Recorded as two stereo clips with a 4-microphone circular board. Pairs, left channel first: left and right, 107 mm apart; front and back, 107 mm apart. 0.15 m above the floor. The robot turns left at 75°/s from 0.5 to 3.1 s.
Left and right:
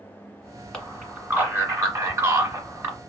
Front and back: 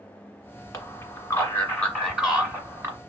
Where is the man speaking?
15° left, 1.6 m; by 3.0 s 155° right, 1.6 m.